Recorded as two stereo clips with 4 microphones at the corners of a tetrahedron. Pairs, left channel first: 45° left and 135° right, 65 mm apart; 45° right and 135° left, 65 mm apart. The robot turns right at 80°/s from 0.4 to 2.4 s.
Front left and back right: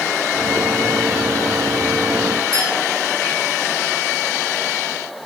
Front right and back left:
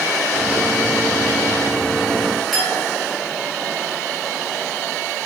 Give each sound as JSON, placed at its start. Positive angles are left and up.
{"t": 2.5, "sound": "a clink", "azimuth_deg": -135, "distance_m": 8.0}